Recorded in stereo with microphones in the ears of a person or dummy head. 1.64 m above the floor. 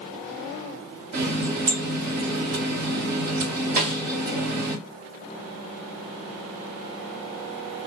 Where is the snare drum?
40° right (ahead or behind), 1.7 m.